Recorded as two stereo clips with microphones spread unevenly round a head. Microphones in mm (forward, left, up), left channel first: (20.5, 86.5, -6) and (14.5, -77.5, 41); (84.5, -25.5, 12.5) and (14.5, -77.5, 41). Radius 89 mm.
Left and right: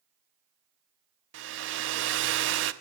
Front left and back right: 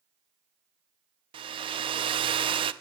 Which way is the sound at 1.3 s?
115° right.